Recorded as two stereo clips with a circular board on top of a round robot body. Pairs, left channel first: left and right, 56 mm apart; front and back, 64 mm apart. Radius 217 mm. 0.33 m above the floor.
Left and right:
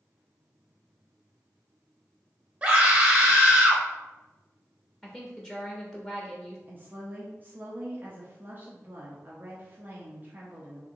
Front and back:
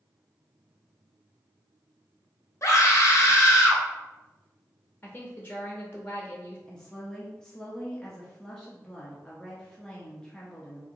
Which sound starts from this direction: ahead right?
A scream, at 2.6 s.